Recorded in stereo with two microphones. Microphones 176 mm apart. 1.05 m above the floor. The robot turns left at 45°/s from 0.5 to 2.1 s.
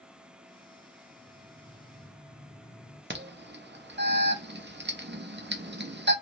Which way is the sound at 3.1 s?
80° right.